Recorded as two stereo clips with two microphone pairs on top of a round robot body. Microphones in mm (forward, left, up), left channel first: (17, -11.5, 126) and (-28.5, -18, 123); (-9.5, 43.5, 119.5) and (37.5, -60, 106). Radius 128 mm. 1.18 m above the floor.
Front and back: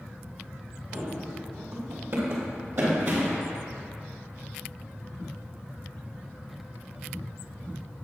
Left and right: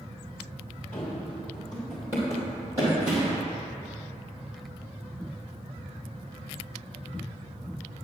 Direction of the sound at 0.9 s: 175° right.